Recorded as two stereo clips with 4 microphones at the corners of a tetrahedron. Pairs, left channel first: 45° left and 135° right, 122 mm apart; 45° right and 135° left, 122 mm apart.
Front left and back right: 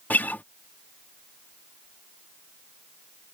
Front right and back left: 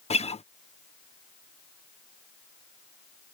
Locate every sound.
0.1 s a guitar: 30° right